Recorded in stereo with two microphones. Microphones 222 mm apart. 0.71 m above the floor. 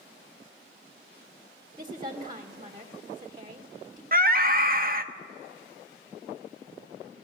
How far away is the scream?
About 1.0 m.